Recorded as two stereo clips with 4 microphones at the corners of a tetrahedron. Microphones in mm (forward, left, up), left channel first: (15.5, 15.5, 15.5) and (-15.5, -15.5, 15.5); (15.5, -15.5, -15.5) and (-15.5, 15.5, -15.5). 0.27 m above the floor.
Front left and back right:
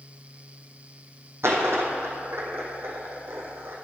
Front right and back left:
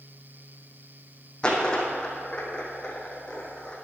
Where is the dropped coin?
115° right, 1.7 m.